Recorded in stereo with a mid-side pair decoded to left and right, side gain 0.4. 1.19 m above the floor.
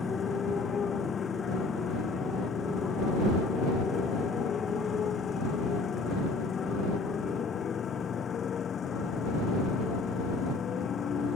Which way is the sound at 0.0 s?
50° left.